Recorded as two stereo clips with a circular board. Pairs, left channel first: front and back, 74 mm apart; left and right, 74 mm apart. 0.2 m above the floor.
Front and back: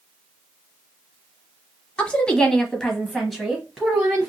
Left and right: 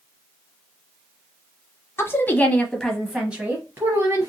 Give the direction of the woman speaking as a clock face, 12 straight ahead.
10 o'clock.